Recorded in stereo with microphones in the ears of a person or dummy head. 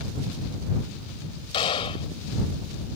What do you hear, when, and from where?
1.5 s a gunshot: 30° left (ahead or behind)